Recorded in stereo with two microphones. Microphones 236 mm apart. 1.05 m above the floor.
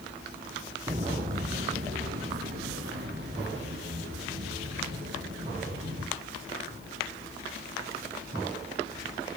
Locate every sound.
0.9 s footsteps: 30° right (ahead or behind), 1.3 m; by 6.0 s 50° right (ahead or behind), 8.5 m